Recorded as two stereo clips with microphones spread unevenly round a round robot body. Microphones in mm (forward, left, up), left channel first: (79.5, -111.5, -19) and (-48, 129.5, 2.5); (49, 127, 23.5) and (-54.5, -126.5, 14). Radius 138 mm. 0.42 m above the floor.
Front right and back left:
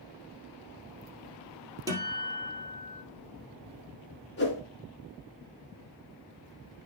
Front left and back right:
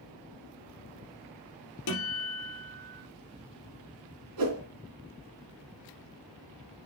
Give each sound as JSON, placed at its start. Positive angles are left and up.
{"t": 1.9, "sound": "a guitar", "azimuth_deg": 40, "distance_m": 3.0}
{"t": 4.4, "sound": "a whoosh", "azimuth_deg": -115, "distance_m": 2.5}